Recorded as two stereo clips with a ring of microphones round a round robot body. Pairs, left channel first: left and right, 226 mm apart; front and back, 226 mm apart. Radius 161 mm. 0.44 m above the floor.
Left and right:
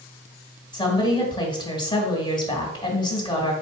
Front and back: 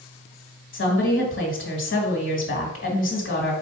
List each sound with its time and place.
0.7 s a woman speaking: 20° left, 1.7 m